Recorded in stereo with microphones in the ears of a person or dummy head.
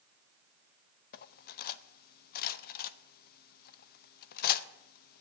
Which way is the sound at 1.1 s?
55° left (ahead or behind).